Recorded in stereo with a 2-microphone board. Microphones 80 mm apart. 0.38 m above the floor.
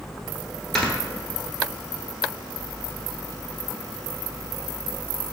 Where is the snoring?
5° left (ahead or behind), 0.9 m.